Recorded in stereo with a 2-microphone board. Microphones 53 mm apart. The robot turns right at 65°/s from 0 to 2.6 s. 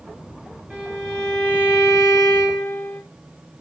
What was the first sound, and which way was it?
A violin, 30° right.